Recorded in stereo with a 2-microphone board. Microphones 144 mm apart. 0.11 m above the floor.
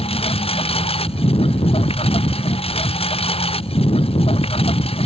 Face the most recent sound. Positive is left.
turn(degrees=40)  # may be behind; listen again after turning